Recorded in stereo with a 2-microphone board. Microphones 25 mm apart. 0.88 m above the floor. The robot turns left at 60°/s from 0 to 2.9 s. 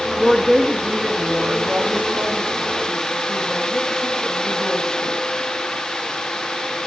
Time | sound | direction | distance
0.2 | a woman speaking | 5° left | 1.3 m